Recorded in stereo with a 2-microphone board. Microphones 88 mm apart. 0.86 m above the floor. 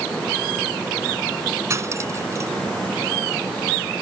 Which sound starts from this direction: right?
Cutlery clinking, at 1.7 s.